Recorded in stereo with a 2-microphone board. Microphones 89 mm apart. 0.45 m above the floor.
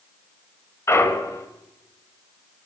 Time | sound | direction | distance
0.9 | a clunk | 35° left (ahead or behind) | 1.6 m